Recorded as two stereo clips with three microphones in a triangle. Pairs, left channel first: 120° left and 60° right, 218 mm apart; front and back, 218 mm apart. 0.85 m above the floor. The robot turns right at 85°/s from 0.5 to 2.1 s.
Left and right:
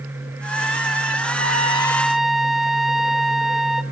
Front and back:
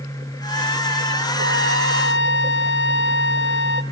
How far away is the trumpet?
About 1.2 m.